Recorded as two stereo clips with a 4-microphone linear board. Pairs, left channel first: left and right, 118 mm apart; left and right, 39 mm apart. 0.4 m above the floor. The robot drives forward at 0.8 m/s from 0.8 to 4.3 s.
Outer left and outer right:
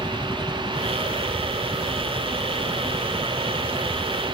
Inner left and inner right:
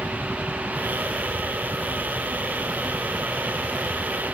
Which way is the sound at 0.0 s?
35° left (ahead or behind).